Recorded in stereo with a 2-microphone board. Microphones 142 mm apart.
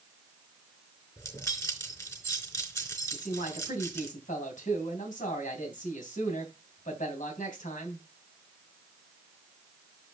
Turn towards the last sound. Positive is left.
turn(degrees=65)  # may be behind; listen again after turning